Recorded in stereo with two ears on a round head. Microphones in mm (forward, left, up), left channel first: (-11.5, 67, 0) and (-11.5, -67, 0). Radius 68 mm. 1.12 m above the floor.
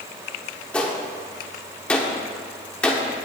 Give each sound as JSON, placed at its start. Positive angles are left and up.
{"t": 0.7, "sound": "a gunshot", "side_deg": 10, "distance_m": 1.0}